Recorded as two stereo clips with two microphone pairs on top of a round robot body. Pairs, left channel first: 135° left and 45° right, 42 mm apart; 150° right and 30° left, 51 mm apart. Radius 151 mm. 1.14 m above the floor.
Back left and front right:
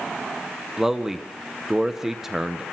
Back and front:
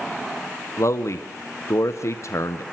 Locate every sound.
0.8 s a man speaking: 125° right, 1.3 m